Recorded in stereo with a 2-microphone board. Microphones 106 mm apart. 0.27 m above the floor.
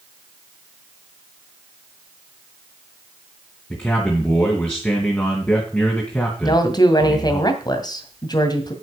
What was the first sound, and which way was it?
A man speaking, 15° left (ahead or behind).